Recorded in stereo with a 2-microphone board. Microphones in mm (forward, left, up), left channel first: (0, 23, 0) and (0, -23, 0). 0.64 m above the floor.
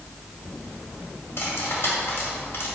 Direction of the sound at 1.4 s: 60° left (ahead or behind).